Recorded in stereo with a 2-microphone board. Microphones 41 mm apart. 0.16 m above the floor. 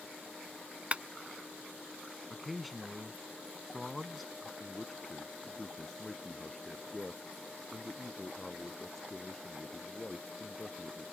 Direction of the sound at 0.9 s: 30° right (ahead or behind).